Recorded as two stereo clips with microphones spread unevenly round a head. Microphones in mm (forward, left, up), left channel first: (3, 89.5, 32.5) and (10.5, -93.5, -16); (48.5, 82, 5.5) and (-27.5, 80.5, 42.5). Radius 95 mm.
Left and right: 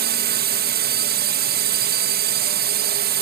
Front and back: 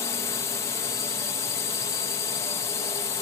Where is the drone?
50° right.